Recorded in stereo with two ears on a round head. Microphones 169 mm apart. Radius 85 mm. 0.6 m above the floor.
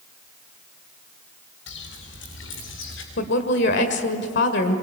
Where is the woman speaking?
70° left (ahead or behind), 2.0 m.